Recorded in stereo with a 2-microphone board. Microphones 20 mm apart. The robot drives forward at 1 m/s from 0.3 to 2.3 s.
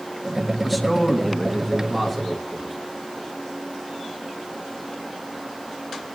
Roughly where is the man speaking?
Centre.